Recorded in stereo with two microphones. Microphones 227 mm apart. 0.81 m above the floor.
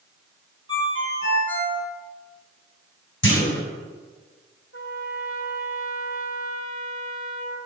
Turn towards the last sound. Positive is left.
turn(degrees=65)  # may be behind; listen again after turning